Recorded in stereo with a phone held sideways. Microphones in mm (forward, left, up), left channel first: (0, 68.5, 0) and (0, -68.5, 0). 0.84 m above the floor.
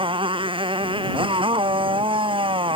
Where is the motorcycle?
40° right (ahead or behind).